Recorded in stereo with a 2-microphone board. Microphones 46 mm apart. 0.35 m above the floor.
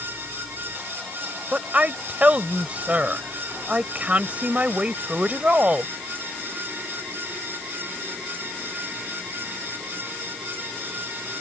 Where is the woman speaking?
30° right (ahead or behind).